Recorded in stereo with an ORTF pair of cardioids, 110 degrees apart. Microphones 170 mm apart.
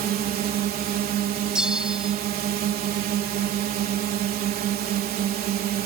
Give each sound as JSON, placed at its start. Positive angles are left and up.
{"t": 0.0, "sound": "a drone", "azimuth_deg": -65}
{"t": 1.6, "sound": "a bell", "azimuth_deg": -5}